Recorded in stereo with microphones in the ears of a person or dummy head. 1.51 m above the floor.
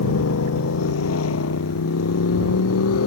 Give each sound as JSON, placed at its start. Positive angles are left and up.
{"t": 0.0, "sound": "a motorcycle", "side_deg": 85}